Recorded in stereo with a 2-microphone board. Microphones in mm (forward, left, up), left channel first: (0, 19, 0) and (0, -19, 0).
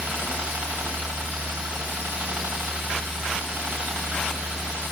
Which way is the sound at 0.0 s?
60° right (ahead or behind).